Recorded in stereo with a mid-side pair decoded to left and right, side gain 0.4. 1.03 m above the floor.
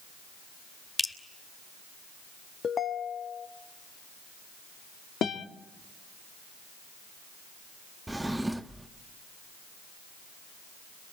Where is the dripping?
10° left, 4 m.